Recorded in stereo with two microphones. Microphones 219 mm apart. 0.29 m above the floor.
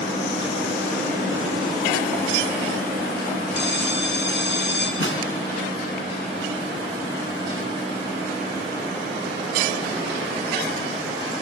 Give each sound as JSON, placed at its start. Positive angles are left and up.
{"t": 3.5, "sound": "a bell", "side_deg": 55, "distance_m": 3.0}
{"t": 5.0, "sound": "a snare drum", "side_deg": 65, "distance_m": 3.0}